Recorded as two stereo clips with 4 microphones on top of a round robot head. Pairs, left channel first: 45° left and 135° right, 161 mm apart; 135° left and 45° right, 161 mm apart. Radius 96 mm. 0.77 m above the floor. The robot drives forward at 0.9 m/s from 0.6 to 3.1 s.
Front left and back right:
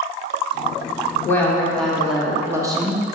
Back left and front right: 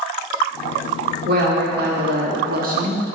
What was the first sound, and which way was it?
A woman speaking, 30° right.